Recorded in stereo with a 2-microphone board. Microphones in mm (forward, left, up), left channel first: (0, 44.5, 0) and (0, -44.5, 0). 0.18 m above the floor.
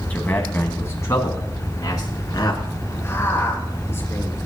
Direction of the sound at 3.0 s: 30° left (ahead or behind).